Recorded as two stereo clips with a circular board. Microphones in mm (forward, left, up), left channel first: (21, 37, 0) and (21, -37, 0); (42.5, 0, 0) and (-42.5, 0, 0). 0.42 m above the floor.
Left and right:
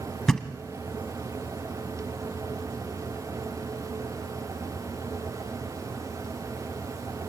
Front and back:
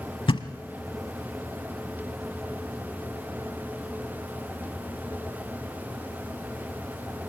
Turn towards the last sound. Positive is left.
turn(degrees=5)